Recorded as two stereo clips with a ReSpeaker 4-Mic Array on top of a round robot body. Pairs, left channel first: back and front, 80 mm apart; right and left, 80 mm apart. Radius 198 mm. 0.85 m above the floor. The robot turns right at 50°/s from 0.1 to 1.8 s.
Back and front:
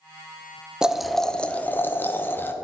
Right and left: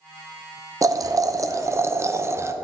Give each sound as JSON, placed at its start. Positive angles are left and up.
{"t": 0.8, "sound": "boiling", "azimuth_deg": 75, "distance_m": 0.9}